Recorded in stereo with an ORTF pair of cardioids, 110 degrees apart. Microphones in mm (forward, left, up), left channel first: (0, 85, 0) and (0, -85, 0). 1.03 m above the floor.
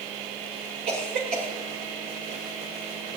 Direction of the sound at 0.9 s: 65° right.